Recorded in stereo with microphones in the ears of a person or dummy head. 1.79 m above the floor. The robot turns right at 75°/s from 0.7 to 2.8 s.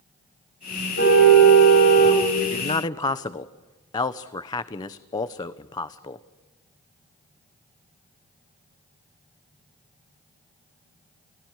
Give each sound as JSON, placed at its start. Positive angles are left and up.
{"t": 1.0, "sound": "a car horn", "azimuth_deg": 60, "distance_m": 5.5}
{"t": 2.4, "sound": "a man speaking", "azimuth_deg": 125, "distance_m": 1.0}